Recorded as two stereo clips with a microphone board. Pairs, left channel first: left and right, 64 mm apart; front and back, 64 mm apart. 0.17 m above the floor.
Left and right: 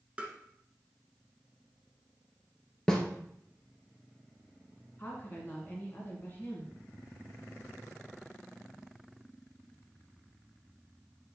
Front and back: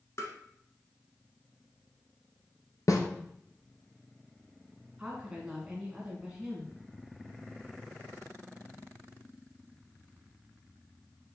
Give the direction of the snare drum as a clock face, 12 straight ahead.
12 o'clock.